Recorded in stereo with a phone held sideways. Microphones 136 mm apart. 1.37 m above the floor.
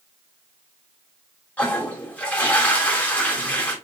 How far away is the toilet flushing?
About 1.8 m.